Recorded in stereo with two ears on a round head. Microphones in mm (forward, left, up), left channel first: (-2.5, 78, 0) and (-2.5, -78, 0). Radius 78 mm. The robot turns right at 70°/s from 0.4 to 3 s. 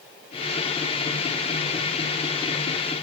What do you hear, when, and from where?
Only background noise.